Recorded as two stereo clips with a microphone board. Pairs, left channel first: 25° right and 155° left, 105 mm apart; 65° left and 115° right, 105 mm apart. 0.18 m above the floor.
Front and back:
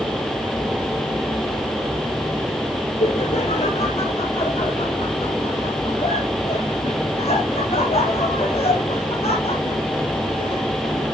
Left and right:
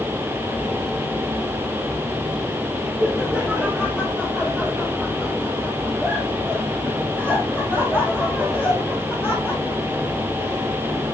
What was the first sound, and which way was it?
Laughter, 25° right.